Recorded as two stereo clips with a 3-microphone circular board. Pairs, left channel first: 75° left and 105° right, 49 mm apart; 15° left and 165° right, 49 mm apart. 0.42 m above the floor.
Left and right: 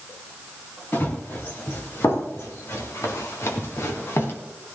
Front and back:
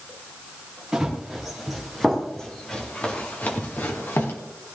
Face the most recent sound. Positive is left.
turn(degrees=45)